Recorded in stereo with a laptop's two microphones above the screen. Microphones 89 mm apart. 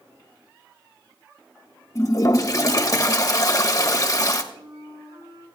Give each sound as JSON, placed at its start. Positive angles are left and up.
{"t": 1.9, "sound": "a toilet flushing", "side_deg": 40, "distance_m": 1.0}
{"t": 4.5, "sound": "a flute", "side_deg": -80, "distance_m": 6.5}